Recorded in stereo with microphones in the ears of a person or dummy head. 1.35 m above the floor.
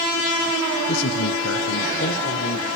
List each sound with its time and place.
0.9 s a man speaking: 70° left (ahead or behind), 0.8 m; by 2.7 s 55° left (ahead or behind), 1.6 m